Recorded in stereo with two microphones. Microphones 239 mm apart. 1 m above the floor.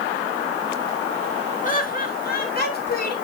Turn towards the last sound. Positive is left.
turn(degrees=40)  # may be behind; listen again after turning